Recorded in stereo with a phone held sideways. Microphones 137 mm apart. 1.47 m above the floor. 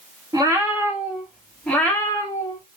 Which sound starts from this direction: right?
A cat meowing, at 0.3 s.